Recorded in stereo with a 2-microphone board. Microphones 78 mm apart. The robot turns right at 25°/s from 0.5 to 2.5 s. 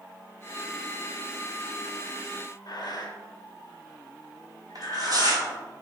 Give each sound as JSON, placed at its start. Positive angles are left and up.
{"t": 2.7, "sound": "breathing", "side_deg": 60, "distance_m": 1.0}
{"t": 4.8, "sound": "tearing paper", "side_deg": -55, "distance_m": 1.1}